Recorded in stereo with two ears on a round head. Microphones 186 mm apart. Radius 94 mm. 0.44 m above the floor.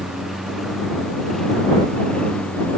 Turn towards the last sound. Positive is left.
turn(degrees=5)  # may be behind; listen again after turning